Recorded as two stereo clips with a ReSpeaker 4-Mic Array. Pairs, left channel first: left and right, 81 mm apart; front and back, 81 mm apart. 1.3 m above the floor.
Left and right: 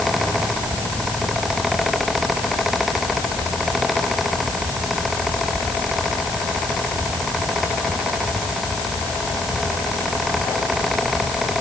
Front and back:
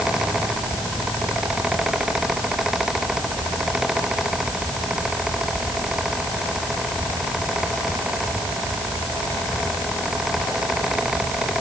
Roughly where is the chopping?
No chopping in this recording.